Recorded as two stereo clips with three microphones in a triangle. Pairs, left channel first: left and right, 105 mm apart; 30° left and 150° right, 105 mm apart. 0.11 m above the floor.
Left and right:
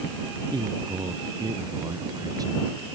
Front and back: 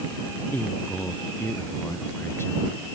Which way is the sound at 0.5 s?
40° right.